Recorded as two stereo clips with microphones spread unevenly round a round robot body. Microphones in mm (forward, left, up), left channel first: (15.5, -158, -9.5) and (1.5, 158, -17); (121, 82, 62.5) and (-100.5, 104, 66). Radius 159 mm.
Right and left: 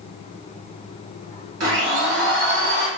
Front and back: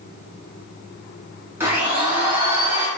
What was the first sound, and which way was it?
A blender, 100° left.